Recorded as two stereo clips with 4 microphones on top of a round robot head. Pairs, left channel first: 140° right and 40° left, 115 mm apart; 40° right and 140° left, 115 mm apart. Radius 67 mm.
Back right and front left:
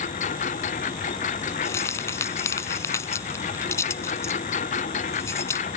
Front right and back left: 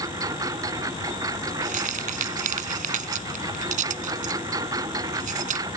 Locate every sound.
0.0 s a lawn mower: 160° right
1.6 s keys jangling: 155° left